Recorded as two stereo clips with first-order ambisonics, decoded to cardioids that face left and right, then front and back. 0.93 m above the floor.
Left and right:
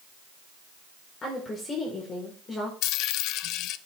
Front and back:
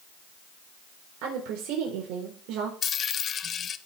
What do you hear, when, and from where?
1.2 s a woman speaking: 160° left, 3.5 m
2.8 s a dropped coin: 60° left, 0.5 m